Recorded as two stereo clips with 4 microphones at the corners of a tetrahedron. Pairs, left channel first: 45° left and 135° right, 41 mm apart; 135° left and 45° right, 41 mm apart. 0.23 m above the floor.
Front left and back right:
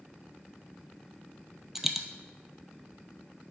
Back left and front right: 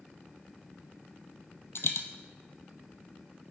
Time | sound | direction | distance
1.8 | a dropped coin | 145° left | 0.6 m